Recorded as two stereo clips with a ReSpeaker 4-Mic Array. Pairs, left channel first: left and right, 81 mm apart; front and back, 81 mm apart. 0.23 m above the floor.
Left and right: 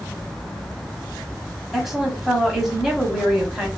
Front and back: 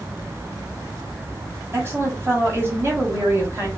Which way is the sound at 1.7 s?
170° right.